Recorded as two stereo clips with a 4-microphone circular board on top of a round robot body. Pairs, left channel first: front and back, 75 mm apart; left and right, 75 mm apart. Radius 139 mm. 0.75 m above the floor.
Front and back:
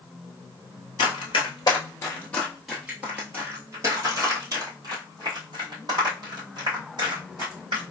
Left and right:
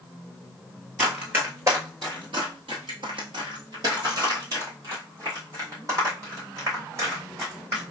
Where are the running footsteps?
15° right, 1.1 m; by 7.8 s 145° right, 3.5 m.